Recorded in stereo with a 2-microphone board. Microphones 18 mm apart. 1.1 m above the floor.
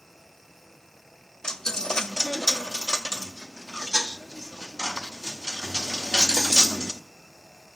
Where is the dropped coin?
35° left (ahead or behind), 0.7 m.